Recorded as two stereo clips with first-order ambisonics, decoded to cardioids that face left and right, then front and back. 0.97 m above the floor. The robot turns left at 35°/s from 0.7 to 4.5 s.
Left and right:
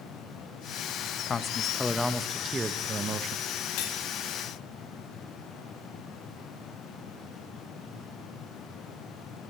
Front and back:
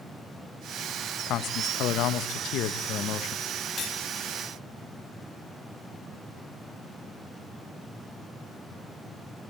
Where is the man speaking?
30° left, 1.2 m; by 3.4 s 45° right, 1.2 m.